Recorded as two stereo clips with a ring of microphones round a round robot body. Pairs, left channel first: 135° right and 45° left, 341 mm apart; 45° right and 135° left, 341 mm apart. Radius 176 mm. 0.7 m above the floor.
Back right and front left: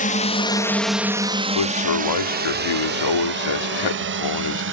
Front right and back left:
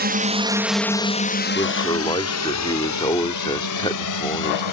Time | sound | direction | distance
0.0 | a drone | 175° left | ?
1.6 | a man speaking | 120° right | ?